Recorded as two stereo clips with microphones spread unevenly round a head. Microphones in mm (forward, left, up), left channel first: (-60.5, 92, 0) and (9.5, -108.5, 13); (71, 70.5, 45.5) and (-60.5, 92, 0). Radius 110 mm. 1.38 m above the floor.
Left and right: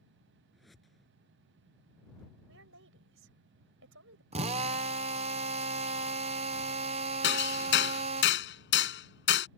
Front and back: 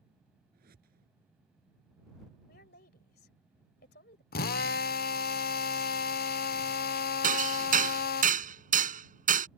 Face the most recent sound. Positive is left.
turn(degrees=145)